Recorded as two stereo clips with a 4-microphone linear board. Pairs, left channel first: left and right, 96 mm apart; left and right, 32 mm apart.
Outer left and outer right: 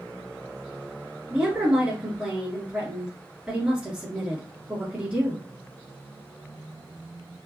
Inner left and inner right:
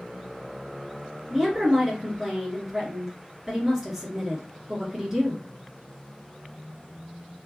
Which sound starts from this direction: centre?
A woman speaking, at 1.3 s.